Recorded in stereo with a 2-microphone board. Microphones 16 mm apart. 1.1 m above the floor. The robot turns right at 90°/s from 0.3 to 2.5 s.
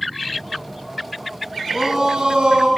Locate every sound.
1.7 s a shout: 165° right, 8.5 m; by 2.7 s 90° right, 8.5 m